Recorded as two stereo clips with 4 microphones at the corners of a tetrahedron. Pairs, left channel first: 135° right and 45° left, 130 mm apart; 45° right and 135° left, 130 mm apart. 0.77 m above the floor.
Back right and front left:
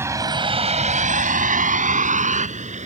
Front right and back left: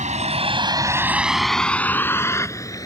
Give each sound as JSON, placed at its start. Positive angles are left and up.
{"t": 0.0, "sound": "a vehicle", "azimuth_deg": 115}